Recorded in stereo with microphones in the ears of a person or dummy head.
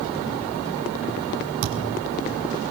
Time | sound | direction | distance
1.6 | a thud | 70° right (ahead or behind) | 6 m